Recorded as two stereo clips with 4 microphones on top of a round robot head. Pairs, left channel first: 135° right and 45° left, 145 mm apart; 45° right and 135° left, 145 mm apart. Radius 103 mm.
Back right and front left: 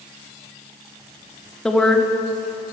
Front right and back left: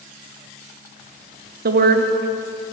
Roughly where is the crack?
I don't hear a crack.